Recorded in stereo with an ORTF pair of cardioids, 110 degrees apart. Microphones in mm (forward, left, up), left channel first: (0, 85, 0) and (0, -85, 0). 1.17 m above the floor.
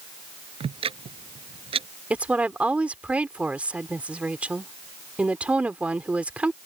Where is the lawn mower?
I don't hear a lawn mower.